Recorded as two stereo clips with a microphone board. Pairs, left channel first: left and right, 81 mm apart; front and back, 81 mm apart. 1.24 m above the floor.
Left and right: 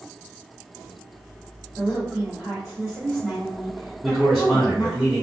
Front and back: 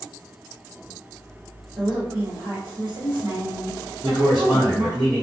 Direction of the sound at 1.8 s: 160° right.